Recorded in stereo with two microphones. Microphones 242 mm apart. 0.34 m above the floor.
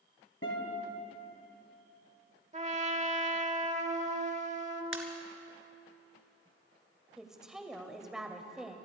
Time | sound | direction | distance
0.4 | a guitar | 60° left (ahead or behind) | 3 m
2.5 | a trumpet | 30° right (ahead or behind) | 1.0 m
4.9 | a pop | 60° right (ahead or behind) | 1.6 m
7.2 | a woman speaking | centre (ahead or behind) | 1.3 m